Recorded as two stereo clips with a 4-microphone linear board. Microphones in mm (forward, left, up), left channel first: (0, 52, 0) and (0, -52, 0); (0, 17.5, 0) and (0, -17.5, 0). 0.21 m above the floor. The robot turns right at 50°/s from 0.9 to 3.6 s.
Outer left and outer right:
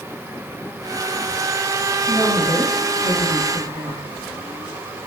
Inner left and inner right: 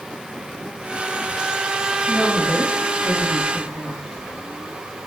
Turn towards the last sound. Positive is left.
turn(degrees=100)